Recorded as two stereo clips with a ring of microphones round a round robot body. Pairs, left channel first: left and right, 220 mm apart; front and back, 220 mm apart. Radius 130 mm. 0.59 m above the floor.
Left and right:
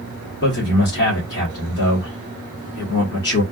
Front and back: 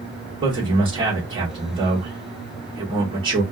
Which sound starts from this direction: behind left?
A man speaking, at 0.4 s.